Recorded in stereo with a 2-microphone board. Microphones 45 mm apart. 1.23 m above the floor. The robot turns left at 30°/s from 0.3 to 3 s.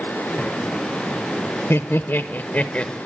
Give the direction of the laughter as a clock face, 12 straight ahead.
10 o'clock.